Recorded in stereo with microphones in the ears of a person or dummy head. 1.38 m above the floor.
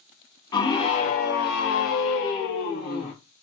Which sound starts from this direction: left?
A scream, at 0.5 s.